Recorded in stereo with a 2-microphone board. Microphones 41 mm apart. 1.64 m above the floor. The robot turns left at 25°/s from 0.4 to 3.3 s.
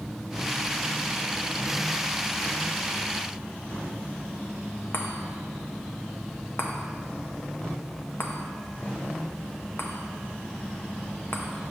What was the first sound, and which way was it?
A chime, 60° left (ahead or behind).